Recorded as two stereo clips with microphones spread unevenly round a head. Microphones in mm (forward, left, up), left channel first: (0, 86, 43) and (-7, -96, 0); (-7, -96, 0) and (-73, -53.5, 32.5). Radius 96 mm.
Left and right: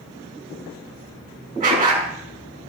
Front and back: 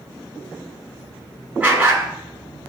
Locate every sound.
1.6 s a dog barking: 145° right, 5 m